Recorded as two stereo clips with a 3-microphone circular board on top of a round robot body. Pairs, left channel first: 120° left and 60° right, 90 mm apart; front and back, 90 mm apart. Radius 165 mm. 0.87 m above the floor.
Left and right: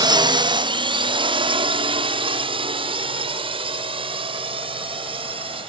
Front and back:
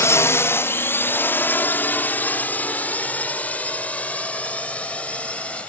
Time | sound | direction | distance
0.0 | a drone | 55° right | ?